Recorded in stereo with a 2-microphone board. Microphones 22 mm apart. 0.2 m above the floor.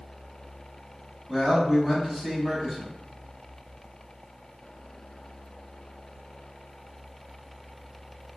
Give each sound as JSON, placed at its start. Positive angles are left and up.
{"t": 1.3, "sound": "a man speaking", "side_deg": -15, "distance_m": 1.0}